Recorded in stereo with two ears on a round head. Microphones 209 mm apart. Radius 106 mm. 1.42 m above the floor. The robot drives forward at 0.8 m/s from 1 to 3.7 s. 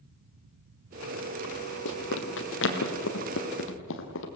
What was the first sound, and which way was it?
Running footsteps, 55° left (ahead or behind).